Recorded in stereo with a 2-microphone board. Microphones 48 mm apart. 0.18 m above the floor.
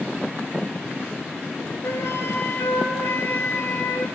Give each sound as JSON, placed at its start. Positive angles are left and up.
{"t": 1.8, "sound": "a flute", "side_deg": 75, "distance_m": 0.7}